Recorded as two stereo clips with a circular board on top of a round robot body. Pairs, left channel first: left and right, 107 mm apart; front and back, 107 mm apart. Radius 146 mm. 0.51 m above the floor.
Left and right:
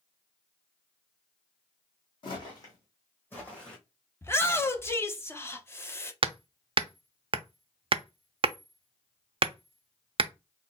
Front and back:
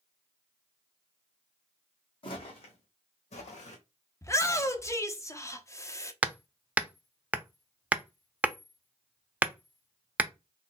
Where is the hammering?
105° right, 0.5 m.